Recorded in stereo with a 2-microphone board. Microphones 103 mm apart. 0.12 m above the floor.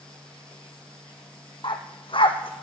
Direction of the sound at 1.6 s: 50° left (ahead or behind).